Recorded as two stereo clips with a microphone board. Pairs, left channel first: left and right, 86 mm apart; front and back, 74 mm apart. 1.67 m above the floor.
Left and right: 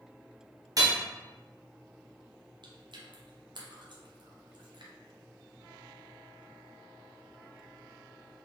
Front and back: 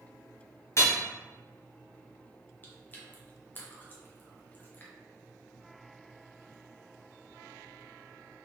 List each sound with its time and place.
0.8 s hammering: 50° right, 1.0 m
2.6 s chewing: 65° right, 1.0 m